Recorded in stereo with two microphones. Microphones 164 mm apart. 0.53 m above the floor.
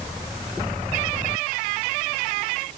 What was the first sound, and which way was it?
Only background noise.